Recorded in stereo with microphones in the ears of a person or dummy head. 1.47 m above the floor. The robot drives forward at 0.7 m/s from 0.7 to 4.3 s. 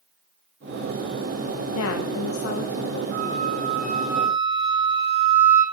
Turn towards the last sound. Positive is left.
turn(degrees=-35)  # may be behind; listen again after turning